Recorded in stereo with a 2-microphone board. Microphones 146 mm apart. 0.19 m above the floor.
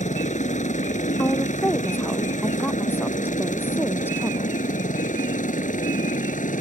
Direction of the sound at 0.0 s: 55° left (ahead or behind).